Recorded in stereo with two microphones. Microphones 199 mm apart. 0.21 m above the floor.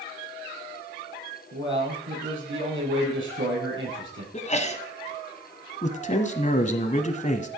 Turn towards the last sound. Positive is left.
turn(degrees=40)  # may be behind; listen again after turning